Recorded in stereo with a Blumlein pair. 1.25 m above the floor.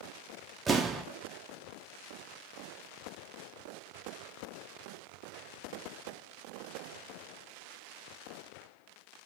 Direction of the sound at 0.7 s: 15° right.